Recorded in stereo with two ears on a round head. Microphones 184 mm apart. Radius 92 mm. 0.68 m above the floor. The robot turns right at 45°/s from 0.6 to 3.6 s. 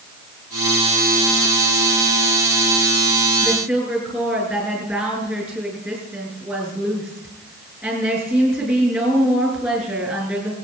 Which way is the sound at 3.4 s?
Centre (ahead or behind).